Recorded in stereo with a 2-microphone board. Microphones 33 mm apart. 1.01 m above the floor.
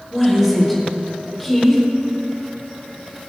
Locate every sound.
0.1 s a woman speaking: centre (ahead or behind), 5 m